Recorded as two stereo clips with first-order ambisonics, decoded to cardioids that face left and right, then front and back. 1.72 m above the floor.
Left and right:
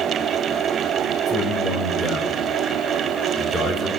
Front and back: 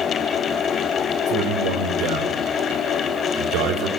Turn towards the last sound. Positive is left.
turn(degrees=-160)